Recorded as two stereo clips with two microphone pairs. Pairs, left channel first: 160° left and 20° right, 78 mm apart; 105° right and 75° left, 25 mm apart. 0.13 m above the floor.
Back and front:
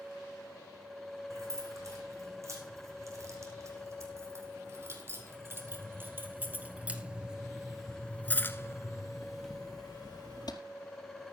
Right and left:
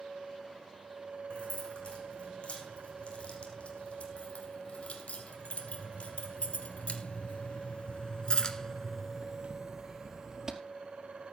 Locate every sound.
1.3 s keys jangling: 65° right, 5.5 m; by 10.6 s 145° left, 2.0 m